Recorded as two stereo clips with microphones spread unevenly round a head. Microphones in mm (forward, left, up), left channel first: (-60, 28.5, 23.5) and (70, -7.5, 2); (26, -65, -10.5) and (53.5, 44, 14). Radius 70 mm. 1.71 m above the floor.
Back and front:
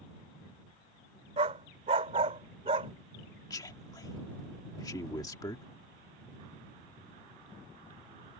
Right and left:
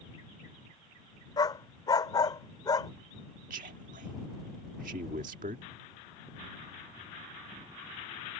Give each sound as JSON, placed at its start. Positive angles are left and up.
{"t": 1.4, "sound": "a dog barking", "azimuth_deg": -55}
{"t": 3.5, "sound": "a man speaking", "azimuth_deg": 105}